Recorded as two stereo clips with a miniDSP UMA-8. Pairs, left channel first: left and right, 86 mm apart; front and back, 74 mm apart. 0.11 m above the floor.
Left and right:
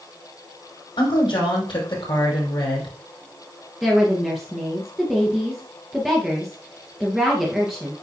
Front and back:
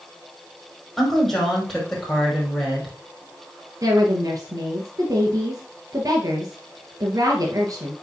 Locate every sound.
1.0 s a woman speaking: 90° left, 5 m
3.8 s a woman speaking: 175° right, 2 m